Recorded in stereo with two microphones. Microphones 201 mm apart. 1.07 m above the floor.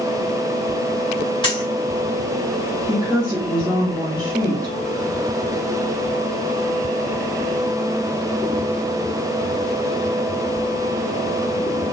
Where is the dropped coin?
25° left (ahead or behind), 3 m.